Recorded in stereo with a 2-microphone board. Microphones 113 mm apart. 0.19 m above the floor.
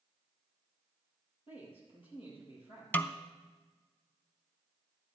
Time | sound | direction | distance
1.5 | a man speaking | 55° left (ahead or behind) | 5 m
2.9 | a snare drum | 15° left (ahead or behind) | 0.5 m